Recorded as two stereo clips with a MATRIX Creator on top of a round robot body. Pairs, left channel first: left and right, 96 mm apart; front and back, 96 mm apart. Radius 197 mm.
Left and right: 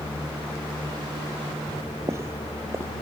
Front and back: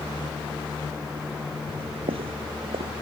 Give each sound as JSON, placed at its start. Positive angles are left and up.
{"t": 1.7, "sound": "footsteps", "azimuth_deg": -155}